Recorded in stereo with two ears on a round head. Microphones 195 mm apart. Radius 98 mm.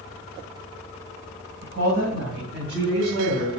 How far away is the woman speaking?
About 3 m.